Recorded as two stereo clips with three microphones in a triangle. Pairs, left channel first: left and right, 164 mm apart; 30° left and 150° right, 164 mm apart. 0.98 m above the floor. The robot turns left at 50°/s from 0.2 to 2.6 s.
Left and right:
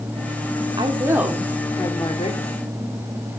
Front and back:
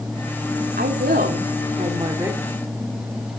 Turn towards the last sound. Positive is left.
turn(degrees=120)